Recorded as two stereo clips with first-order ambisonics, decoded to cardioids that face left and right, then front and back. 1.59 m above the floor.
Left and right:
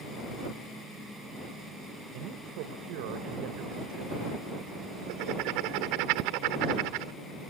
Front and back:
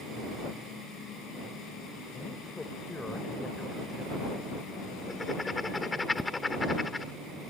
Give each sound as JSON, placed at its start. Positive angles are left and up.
{"t": 2.1, "sound": "a man speaking", "azimuth_deg": -80}
{"t": 5.1, "sound": "writing", "azimuth_deg": -80}